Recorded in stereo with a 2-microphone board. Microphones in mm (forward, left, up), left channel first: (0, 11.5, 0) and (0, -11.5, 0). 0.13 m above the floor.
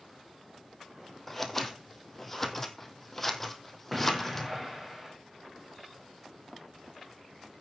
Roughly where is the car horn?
No car horn in this recording.